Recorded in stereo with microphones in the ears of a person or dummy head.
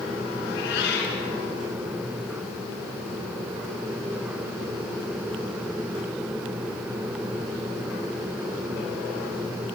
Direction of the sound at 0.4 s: 60° left (ahead or behind).